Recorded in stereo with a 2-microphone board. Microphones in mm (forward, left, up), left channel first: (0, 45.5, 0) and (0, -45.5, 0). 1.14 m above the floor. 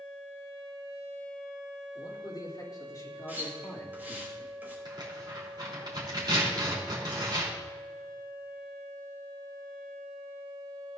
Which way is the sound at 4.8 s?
50° right (ahead or behind).